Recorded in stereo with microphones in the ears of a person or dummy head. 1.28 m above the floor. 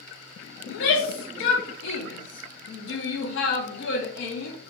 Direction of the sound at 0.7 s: 60° left (ahead or behind).